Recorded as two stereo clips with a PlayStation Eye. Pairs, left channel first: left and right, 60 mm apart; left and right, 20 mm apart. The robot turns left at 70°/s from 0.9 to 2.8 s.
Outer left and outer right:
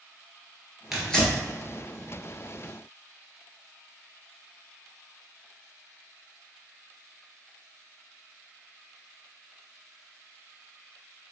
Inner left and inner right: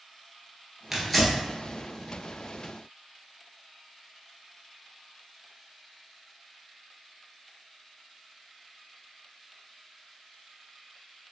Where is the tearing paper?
5° right (ahead or behind), 1.4 m; by 1.4 s 25° left (ahead or behind), 1.4 m.